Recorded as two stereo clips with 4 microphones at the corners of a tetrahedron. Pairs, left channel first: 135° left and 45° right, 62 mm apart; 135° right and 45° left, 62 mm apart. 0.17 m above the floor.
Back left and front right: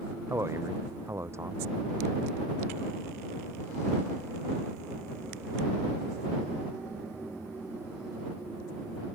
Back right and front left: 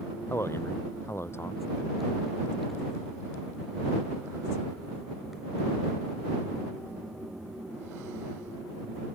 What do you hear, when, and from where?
0.3 s a man speaking: 85° right